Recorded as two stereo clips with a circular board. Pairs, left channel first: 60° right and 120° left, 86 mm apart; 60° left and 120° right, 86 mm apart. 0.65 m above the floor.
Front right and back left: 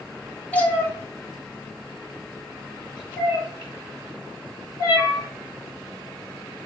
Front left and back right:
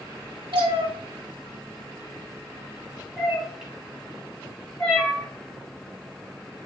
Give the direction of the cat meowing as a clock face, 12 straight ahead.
4 o'clock.